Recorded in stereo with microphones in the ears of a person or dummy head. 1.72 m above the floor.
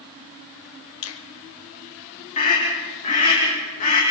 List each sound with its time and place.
1.0 s a finger snap: 80° left, 1.2 m
2.4 s a scream: 40° left (ahead or behind), 3 m